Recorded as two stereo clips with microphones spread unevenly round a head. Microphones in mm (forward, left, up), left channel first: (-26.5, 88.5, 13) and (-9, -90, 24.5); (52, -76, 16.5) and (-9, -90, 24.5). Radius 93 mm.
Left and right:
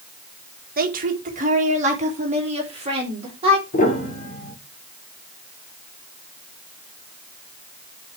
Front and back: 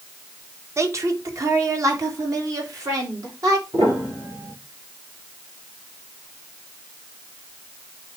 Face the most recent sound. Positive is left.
turn(degrees=140)